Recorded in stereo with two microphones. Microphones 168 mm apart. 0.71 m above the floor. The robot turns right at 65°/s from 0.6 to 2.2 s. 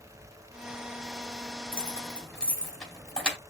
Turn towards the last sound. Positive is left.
turn(degrees=5)  # may be behind; listen again after turning